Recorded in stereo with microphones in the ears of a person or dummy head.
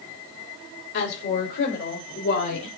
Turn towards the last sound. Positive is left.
turn(degrees=65)  # may be behind; listen again after turning